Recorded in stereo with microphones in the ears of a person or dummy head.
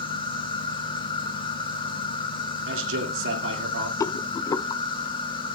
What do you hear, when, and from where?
0.0 s an insect: 30° left (ahead or behind), 1.5 m
2.7 s a man speaking: 75° right (ahead or behind), 2.5 m
4.0 s a rattle: 25° left (ahead or behind), 0.5 m